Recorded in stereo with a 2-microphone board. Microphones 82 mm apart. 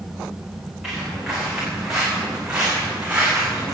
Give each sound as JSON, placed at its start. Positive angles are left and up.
{"t": 0.8, "sound": "footsteps", "side_deg": 0, "distance_m": 7.5}